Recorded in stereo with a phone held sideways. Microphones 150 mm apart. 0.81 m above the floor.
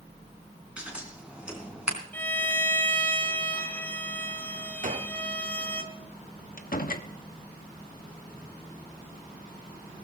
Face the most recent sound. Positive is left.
turn(degrees=65)  # may be behind; listen again after turning